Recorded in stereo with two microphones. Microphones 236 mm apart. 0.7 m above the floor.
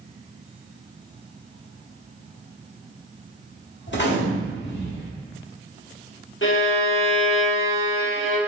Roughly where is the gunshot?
Left.